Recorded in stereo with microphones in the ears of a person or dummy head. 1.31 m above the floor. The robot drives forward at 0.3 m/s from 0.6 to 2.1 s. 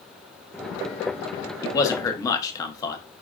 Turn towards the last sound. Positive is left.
turn(degrees=15)  # may be behind; listen again after turning